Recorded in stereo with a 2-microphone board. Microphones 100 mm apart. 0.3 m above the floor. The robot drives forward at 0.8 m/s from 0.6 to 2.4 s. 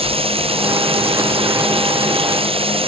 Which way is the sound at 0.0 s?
75° right (ahead or behind).